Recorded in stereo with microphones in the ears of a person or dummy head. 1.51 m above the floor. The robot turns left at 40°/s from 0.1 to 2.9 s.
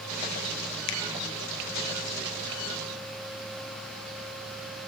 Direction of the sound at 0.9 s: 70° left (ahead or behind).